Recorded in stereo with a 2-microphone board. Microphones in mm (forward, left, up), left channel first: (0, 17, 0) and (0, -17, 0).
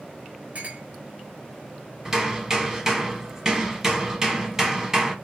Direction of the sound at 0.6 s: 40° right (ahead or behind).